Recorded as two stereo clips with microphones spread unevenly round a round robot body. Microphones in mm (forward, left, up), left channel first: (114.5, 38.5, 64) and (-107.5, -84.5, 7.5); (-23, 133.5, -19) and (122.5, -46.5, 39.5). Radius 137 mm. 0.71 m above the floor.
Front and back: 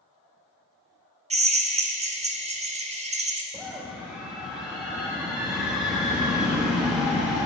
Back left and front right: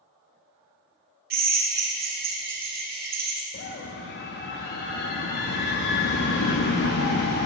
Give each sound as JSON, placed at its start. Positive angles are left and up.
{"t": 1.3, "sound": "a drill", "azimuth_deg": -110, "distance_m": 1.3}
{"t": 3.5, "sound": "a scream", "azimuth_deg": 130, "distance_m": 0.8}